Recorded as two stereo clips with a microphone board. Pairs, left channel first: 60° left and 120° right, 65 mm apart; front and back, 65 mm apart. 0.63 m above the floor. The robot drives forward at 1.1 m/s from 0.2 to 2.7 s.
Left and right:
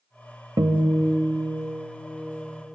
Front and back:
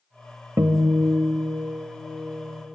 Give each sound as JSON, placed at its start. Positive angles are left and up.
{"t": 0.6, "sound": "a guitar", "azimuth_deg": -140, "distance_m": 0.6}